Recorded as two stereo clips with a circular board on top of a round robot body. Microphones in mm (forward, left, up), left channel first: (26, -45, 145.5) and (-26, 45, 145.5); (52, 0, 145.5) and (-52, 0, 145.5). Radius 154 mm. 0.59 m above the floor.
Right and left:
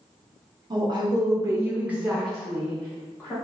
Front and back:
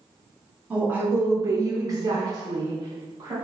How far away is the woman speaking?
About 0.9 m.